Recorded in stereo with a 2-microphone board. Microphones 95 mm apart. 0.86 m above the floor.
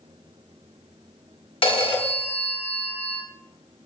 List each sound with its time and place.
1.6 s a phone ringing: 75° left (ahead or behind), 0.7 m